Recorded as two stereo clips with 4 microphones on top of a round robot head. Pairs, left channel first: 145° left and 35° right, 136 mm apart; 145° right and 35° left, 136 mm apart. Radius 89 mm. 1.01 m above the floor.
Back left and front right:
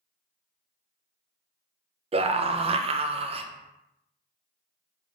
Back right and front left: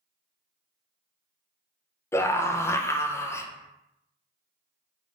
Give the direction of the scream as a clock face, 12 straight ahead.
2 o'clock.